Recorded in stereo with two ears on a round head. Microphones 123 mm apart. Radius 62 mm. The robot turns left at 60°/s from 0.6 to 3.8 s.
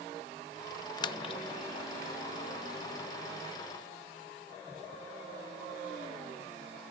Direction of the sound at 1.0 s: 30° left (ahead or behind).